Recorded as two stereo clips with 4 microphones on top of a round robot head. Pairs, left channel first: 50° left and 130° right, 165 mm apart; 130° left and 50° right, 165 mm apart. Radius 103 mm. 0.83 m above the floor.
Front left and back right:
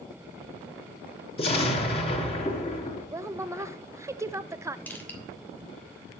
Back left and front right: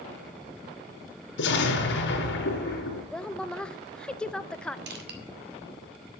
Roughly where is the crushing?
Ahead right.